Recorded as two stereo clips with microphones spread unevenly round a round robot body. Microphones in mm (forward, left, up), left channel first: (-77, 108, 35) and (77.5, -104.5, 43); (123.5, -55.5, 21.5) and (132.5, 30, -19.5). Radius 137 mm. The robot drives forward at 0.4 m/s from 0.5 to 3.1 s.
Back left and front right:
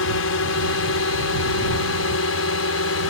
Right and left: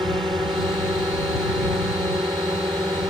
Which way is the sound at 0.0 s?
160° left.